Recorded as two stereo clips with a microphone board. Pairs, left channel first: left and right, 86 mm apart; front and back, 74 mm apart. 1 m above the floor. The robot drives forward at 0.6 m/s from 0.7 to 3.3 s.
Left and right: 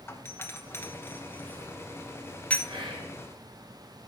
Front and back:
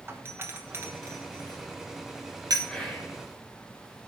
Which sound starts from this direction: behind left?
A doorbell, at 0.1 s.